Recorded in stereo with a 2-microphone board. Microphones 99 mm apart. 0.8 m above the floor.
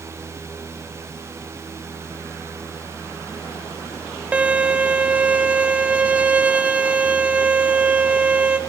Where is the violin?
15° right (ahead or behind), 0.6 m.